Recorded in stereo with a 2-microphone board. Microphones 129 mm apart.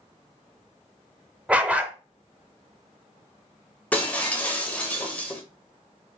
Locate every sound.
1.5 s a dog barking: 10° right (ahead or behind), 0.6 m
3.9 s breaking glass: 10° left (ahead or behind), 1.2 m